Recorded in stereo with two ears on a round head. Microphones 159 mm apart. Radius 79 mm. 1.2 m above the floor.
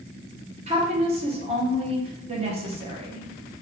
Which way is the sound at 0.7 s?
35° right (ahead or behind).